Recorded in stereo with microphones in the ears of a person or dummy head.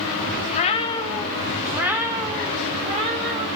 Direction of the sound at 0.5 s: 35° left (ahead or behind).